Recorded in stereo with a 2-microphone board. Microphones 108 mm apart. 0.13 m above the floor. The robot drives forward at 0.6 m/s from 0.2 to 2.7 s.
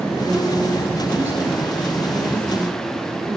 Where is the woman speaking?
20° right (ahead or behind), 6 m; by 3.4 s 15° right (ahead or behind), 7.5 m.